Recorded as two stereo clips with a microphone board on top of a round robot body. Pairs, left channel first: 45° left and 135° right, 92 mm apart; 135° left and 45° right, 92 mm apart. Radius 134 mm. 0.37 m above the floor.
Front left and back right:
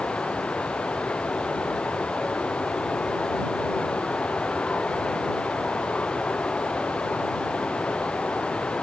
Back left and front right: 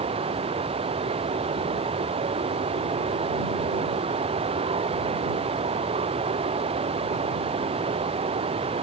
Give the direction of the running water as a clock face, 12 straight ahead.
1 o'clock.